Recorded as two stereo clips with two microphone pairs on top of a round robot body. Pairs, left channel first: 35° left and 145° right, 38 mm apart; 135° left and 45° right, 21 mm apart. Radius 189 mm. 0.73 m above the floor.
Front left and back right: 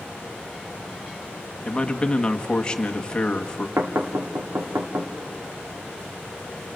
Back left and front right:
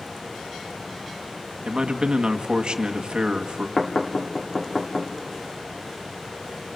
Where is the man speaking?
30° right, 1.8 m.